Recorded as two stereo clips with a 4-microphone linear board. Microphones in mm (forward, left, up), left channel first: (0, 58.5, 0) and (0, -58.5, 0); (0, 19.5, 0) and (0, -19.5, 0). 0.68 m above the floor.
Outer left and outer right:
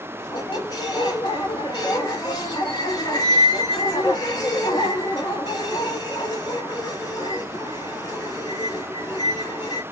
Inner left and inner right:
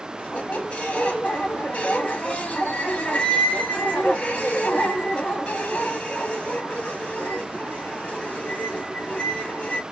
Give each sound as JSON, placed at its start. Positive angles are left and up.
{"t": 0.2, "sound": "a squeak", "side_deg": 35, "distance_m": 0.7}